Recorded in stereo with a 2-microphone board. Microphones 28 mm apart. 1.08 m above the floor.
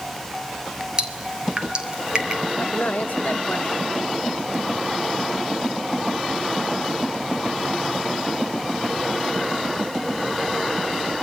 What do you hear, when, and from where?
1.0 s dripping: 30° right (ahead or behind), 3 m
2.6 s a man speaking: 65° left (ahead or behind), 1.1 m